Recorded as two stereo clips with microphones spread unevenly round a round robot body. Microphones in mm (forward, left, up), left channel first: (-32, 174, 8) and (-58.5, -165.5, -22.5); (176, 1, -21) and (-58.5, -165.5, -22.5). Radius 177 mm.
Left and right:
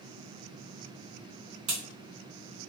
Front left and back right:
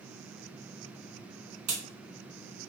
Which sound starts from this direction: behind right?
A crack, at 1.7 s.